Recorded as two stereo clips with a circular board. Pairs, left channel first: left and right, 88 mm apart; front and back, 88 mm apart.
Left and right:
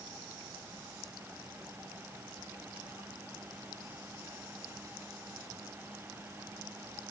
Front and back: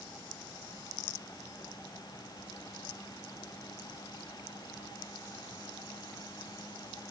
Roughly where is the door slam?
No door slam in this recording.